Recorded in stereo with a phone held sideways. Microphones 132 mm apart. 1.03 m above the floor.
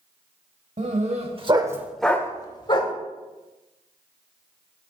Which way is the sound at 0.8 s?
60° right (ahead or behind).